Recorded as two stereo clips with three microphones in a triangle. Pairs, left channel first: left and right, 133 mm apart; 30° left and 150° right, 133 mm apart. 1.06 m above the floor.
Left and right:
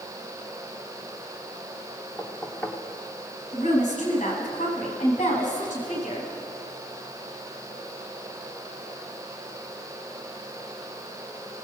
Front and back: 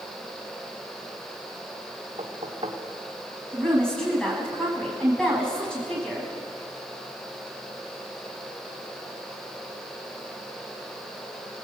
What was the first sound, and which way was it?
Knocking, 170° left.